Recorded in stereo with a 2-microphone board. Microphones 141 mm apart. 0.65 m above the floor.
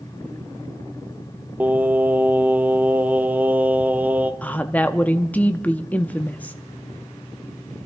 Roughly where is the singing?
Centre.